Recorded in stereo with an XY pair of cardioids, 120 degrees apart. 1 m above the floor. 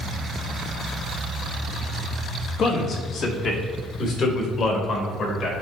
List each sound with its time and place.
2.6 s a man speaking: 60° left, 1.2 m